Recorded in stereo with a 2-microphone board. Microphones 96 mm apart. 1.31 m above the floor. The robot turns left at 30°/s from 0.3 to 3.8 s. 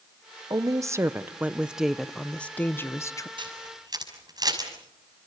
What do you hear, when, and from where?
0.5 s a woman speaking: 135° right, 0.8 m; by 3.3 s 140° left, 0.8 m
3.4 s a camera shutter: 55° right (ahead or behind), 6 m; by 4.7 s 45° right (ahead or behind), 6 m